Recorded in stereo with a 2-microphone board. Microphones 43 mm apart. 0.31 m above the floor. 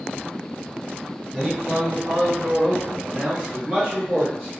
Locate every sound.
1.3 s a man speaking: 5° right (ahead or behind), 1.6 m; by 4.5 s 20° right (ahead or behind), 1.4 m